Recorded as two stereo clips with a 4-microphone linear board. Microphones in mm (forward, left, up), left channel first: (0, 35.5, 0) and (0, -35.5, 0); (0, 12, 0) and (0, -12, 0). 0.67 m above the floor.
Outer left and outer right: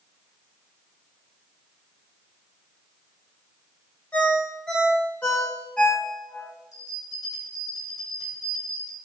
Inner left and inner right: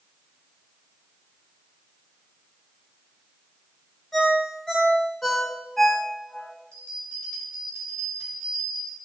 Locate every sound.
4.1 s a ringtone: 20° left (ahead or behind), 1.7 m
6.7 s a bell: 65° left (ahead or behind), 2.5 m